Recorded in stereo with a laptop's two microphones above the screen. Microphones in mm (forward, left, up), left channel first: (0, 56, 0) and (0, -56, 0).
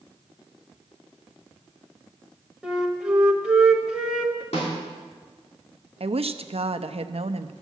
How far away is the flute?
About 1.1 m.